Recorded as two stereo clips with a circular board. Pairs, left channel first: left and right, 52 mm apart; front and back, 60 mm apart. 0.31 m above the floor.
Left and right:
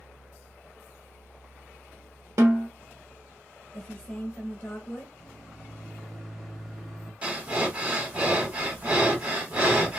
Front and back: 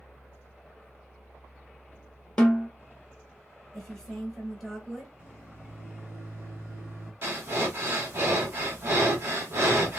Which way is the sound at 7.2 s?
145° right.